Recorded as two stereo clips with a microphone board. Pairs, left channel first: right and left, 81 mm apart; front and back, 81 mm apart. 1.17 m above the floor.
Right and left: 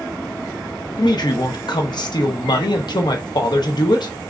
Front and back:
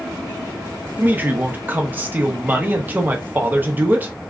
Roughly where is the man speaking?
Behind right.